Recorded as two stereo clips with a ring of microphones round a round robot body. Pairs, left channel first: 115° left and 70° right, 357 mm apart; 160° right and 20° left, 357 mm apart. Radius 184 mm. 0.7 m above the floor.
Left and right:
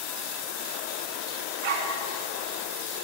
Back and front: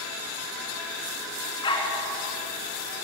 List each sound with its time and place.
1.6 s a dog barking: 80° right, 3 m